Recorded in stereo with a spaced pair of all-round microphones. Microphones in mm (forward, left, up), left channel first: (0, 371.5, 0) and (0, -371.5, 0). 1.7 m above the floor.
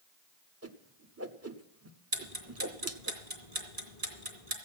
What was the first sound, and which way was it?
A whoosh, 20° right (ahead or behind).